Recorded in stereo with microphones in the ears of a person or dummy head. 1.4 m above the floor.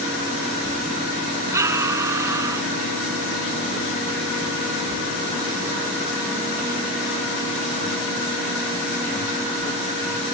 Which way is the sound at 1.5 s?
20° right (ahead or behind).